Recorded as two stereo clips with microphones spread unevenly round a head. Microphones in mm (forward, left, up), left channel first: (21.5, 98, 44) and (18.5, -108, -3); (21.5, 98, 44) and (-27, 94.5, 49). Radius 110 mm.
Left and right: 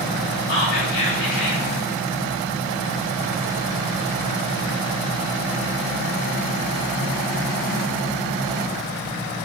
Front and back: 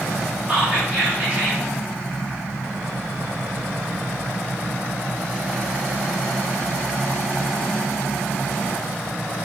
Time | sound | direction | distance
0.5 | whispering | 125° left | 2 m